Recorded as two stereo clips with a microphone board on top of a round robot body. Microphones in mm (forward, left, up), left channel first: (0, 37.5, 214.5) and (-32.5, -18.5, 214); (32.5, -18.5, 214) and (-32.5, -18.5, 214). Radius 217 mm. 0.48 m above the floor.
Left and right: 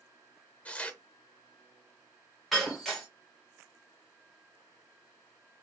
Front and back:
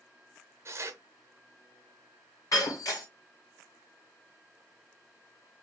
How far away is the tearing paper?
About 0.5 m.